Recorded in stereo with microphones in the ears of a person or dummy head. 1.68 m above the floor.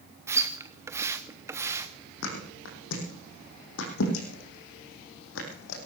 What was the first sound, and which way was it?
A splash, 15° right (ahead or behind).